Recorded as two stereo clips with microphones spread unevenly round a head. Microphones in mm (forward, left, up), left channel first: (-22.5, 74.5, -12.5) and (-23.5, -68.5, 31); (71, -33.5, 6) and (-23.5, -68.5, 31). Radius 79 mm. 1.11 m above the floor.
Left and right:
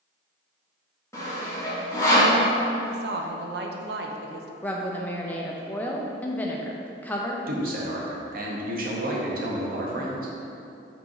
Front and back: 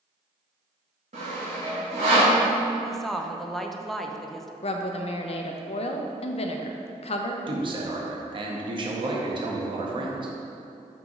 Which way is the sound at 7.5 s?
120° right.